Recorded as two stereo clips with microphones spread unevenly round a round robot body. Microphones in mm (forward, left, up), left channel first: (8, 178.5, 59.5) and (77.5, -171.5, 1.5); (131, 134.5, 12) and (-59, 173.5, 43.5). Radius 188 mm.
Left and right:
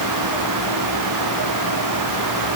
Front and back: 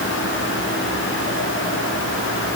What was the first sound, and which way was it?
Only background noise.